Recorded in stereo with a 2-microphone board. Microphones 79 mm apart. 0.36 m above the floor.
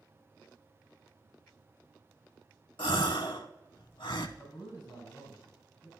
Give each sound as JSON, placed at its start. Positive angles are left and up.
{"t": 2.8, "sound": "a gasp", "side_deg": 80, "distance_m": 0.5}
{"t": 4.4, "sound": "a man speaking", "side_deg": 65, "distance_m": 3.5}